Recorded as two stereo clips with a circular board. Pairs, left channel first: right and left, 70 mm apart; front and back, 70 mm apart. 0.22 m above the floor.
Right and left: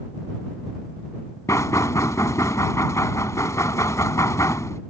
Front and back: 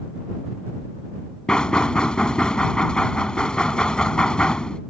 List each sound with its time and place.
1.5 s knocking: 75° right